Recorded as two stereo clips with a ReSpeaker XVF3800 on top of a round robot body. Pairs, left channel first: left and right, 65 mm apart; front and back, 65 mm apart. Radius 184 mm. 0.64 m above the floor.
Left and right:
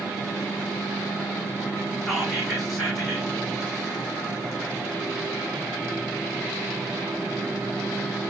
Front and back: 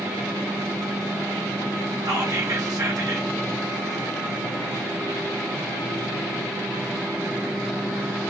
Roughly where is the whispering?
Behind.